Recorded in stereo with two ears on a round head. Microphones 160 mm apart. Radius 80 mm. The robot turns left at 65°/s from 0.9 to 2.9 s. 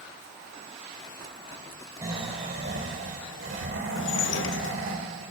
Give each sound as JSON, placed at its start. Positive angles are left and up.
{"t": 2.0, "sound": "snoring", "azimuth_deg": -15, "distance_m": 1.9}
{"t": 4.0, "sound": "dishes clattering", "side_deg": 70, "distance_m": 0.6}